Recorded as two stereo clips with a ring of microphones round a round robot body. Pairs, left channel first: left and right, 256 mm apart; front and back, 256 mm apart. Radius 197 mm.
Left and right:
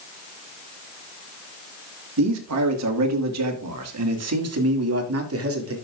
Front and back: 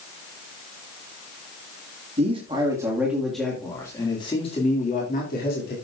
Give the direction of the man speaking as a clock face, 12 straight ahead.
4 o'clock.